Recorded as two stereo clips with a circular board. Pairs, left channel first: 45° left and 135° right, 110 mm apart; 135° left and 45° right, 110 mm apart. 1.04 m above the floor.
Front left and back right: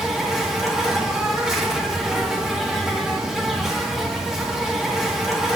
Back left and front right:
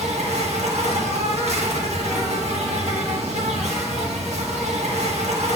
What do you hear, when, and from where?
0.0 s an insect: 50° right, 1.2 m